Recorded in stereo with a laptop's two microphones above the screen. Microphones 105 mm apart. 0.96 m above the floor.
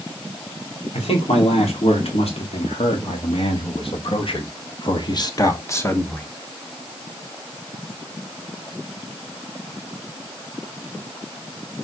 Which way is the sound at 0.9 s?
80° left.